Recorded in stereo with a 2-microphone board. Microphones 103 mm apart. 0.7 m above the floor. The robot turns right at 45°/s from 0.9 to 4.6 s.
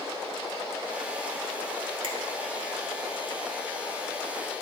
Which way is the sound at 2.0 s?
60° right (ahead or behind).